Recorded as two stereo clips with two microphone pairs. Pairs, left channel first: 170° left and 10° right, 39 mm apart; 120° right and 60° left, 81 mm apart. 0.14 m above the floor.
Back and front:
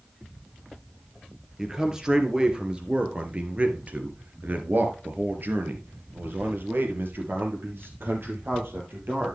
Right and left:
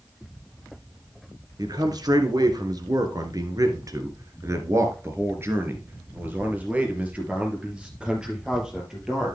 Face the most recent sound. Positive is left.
turn(degrees=-25)